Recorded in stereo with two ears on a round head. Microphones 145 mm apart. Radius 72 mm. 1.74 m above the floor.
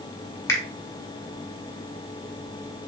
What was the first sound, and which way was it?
A finger snap, 20° left (ahead or behind).